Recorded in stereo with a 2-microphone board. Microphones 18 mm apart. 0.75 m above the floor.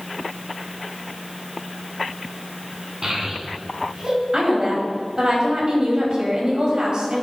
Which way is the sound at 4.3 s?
45° right (ahead or behind).